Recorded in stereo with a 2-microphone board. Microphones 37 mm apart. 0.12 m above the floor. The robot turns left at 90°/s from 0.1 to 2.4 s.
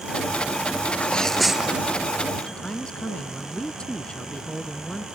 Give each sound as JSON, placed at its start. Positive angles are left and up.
{"t": 0.9, "sound": "a sneeze", "azimuth_deg": 45}
{"t": 2.5, "sound": "a man speaking", "side_deg": 25}